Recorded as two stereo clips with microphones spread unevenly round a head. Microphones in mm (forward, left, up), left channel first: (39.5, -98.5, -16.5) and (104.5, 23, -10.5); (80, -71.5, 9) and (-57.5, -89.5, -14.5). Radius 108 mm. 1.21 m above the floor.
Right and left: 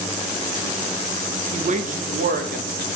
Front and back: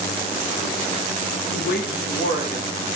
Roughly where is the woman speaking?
Ahead.